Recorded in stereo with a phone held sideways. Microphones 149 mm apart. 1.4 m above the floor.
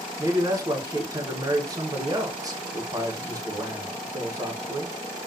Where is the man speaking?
25° right (ahead or behind), 1.2 m.